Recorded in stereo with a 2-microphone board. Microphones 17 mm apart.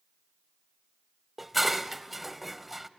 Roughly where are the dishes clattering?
Centre.